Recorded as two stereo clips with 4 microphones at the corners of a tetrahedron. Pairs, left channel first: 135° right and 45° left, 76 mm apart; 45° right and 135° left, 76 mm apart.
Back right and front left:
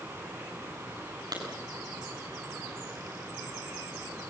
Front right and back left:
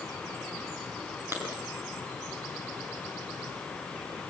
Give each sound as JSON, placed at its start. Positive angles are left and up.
{"t": 1.3, "sound": "a clap", "azimuth_deg": 75, "distance_m": 6.5}